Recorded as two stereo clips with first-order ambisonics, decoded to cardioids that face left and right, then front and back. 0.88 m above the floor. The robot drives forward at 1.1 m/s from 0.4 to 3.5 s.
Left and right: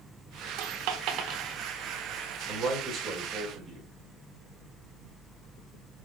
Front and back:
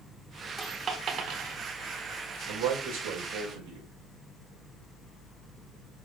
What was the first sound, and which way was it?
A dropped coin, 95° right.